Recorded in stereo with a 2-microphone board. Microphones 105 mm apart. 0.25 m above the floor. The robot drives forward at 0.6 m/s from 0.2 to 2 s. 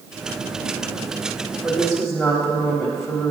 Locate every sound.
1.6 s a woman speaking: centre (ahead or behind), 1.2 m